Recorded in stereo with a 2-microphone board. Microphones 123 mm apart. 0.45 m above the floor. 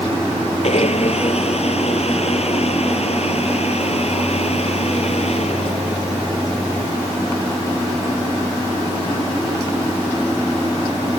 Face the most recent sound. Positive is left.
turn(degrees=60)  # may be behind; listen again after turning